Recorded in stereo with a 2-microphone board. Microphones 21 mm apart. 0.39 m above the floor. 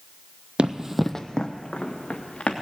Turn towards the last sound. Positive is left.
turn(degrees=65)  # may be behind; listen again after turning